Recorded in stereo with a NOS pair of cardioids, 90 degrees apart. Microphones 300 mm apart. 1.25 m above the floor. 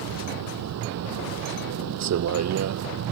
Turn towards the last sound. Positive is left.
turn(degrees=-60)